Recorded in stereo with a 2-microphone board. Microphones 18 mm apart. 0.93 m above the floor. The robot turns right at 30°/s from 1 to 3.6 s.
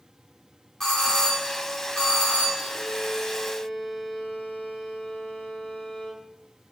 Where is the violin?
80° left, 2.5 m; by 6.2 s 70° left (ahead or behind), 2.5 m.